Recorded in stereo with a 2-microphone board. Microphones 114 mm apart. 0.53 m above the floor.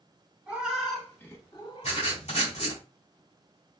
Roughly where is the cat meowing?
Centre.